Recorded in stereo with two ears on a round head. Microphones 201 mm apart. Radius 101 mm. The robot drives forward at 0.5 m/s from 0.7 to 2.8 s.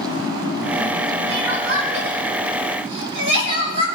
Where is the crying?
70° right (ahead or behind), 4.5 m; by 3.9 s 60° right (ahead or behind), 5 m.